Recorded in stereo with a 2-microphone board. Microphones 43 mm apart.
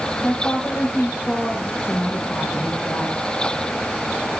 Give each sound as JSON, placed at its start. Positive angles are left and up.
{"t": 0.2, "sound": "a woman speaking", "side_deg": 75, "distance_m": 7.5}
{"t": 1.8, "sound": "a woman speaking", "side_deg": 65, "distance_m": 4.5}